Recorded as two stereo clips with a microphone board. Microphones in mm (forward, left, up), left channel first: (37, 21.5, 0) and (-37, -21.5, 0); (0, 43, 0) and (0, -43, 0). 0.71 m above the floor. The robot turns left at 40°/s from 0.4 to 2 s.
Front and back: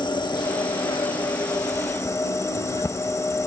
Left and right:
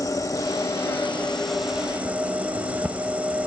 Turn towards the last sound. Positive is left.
turn(degrees=-20)